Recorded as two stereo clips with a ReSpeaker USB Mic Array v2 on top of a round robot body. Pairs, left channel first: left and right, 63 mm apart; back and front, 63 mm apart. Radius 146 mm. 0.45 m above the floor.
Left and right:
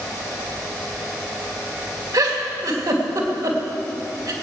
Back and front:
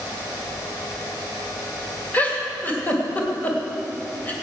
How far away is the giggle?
About 2.5 m.